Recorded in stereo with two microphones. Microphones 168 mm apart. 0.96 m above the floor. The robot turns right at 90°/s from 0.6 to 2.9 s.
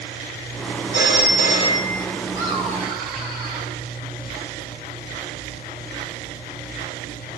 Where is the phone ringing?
80° left, 1.5 m; by 2.0 s 175° right, 1.5 m.